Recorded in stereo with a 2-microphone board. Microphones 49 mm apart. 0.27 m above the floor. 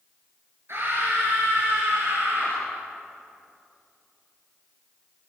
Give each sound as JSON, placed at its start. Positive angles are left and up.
{"t": 0.7, "sound": "a scream", "side_deg": -60, "distance_m": 5.5}